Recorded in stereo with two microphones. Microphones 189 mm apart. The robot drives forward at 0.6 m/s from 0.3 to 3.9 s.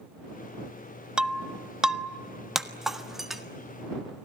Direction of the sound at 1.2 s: 5° right (ahead or behind).